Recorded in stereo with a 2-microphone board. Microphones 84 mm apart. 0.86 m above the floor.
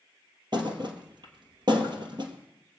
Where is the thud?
55° right (ahead or behind), 2 m.